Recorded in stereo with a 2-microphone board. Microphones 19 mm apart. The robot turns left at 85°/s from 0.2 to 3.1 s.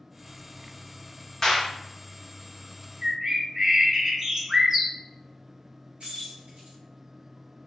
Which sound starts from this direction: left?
A clap, at 1.4 s.